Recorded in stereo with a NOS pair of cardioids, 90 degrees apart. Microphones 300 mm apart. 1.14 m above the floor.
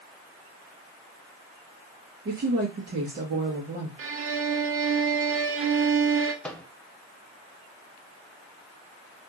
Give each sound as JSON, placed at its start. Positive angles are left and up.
{"t": 2.2, "sound": "a woman speaking", "azimuth_deg": -35, "distance_m": 1.2}
{"t": 4.0, "sound": "a violin", "azimuth_deg": -50, "distance_m": 0.7}
{"t": 6.4, "sound": "a microwave", "azimuth_deg": 5, "distance_m": 0.8}